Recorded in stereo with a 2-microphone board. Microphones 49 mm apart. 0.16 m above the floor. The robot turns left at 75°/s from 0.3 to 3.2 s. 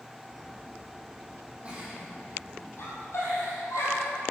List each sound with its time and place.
1.6 s a giggle: 25° right (ahead or behind), 6 m; by 4.1 s 75° left (ahead or behind), 6 m